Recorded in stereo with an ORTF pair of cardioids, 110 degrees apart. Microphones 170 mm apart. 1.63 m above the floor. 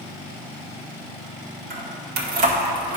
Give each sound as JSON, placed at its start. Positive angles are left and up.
{"t": 1.7, "sound": "keys jangling", "azimuth_deg": -70, "distance_m": 2.5}